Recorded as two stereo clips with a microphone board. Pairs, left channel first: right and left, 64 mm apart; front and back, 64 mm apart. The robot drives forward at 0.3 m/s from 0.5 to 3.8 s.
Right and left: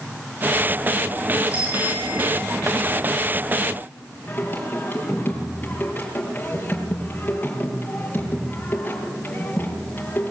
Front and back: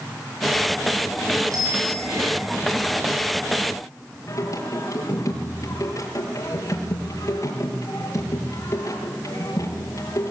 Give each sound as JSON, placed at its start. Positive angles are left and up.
{"t": 1.5, "sound": "a bicycle bell", "azimuth_deg": 155, "distance_m": 9.5}
{"t": 4.3, "sound": "singing", "azimuth_deg": -30, "distance_m": 6.0}